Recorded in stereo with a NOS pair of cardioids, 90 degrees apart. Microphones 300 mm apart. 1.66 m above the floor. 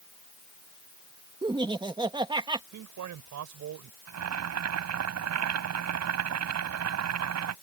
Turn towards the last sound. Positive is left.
turn(degrees=-60)